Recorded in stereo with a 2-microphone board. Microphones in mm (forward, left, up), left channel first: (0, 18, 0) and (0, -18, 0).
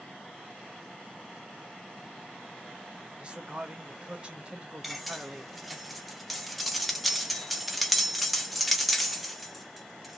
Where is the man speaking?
30° right (ahead or behind), 1.2 m.